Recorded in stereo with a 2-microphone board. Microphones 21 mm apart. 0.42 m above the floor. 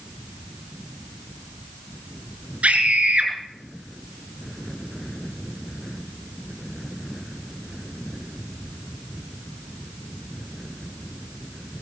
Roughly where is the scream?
Right.